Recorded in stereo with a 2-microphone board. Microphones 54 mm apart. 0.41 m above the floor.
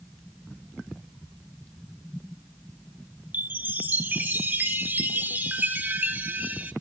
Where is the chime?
35° right (ahead or behind), 0.9 m.